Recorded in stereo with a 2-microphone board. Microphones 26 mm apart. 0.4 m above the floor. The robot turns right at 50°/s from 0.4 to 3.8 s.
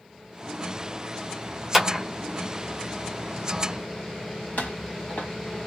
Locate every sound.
1.7 s a clap: 10° right (ahead or behind), 1.1 m; by 2.0 s centre (ahead or behind), 1.1 m
4.6 s footsteps: 75° left (ahead or behind), 1.5 m